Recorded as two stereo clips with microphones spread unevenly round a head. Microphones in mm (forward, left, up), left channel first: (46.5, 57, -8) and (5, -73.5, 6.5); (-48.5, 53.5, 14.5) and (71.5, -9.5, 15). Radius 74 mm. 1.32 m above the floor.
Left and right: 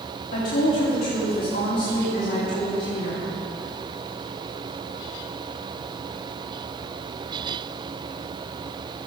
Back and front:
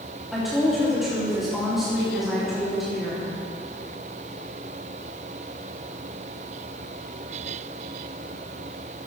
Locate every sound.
0.3 s a woman speaking: 60° left, 3.5 m